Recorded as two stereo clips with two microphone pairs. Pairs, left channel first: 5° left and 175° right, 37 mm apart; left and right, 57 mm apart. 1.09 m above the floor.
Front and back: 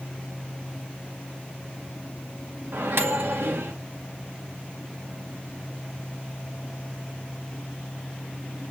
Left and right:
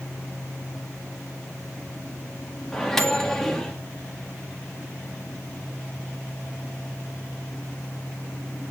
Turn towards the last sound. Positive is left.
turn(degrees=175)